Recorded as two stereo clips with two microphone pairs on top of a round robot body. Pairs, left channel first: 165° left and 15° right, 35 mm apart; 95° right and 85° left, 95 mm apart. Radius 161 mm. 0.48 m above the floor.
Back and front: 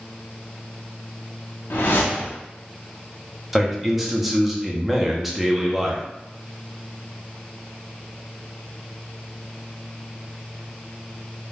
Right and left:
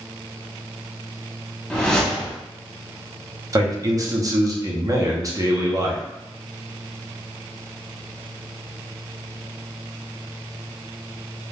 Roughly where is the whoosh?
Behind.